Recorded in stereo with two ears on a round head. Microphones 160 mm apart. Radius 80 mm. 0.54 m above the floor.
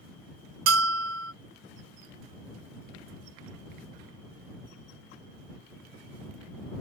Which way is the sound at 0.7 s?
85° right.